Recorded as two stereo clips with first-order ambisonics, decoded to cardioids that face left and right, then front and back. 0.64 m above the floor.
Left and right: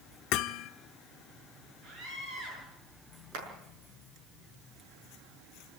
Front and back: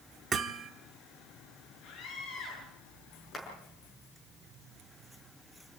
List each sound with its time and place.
0.3 s hammering: 115° left, 1.0 m
1.8 s a scream: 35° right, 9.5 m
3.3 s a clap: 80° right, 6.5 m